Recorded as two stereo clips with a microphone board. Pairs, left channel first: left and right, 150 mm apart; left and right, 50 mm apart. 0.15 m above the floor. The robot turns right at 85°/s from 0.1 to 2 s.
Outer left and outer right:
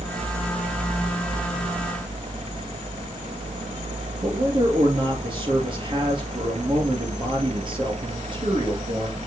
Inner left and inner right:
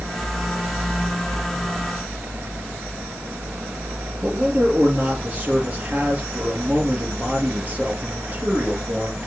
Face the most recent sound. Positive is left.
turn(degrees=-35)  # may be behind; listen again after turning